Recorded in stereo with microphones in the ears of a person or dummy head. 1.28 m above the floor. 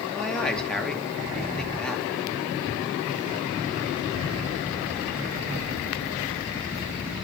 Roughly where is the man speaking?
Centre.